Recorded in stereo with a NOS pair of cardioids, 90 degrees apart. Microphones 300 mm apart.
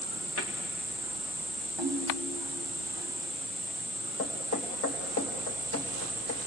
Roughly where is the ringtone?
Ahead.